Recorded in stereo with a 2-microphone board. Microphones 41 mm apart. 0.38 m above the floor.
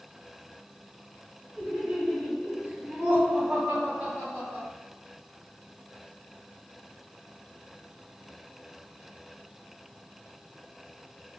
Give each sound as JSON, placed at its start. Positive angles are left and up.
{"t": 1.6, "sound": "laughter", "side_deg": 5, "distance_m": 1.3}